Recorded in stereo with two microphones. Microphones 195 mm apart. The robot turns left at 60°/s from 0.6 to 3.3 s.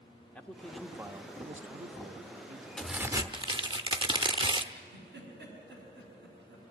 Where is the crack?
5° left, 0.7 m; by 4.7 s 30° right, 0.7 m.